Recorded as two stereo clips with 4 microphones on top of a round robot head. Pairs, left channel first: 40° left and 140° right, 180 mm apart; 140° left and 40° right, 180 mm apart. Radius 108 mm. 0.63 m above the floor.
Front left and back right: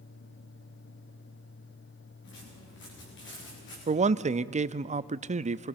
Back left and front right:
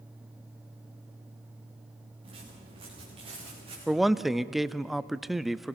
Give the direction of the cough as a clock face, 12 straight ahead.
I don't hear a cough.